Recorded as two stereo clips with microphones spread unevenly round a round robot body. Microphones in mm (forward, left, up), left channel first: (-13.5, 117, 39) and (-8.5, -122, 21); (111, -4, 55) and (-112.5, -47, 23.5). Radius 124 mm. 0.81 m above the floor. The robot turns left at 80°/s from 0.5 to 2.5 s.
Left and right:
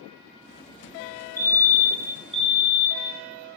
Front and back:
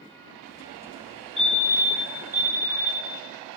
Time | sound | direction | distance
1.4 | a fire alarm | 40° right | 1.5 m